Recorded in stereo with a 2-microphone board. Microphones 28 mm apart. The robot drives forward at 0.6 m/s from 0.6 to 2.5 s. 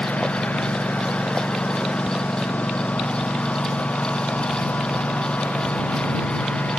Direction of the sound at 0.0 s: 70° left (ahead or behind).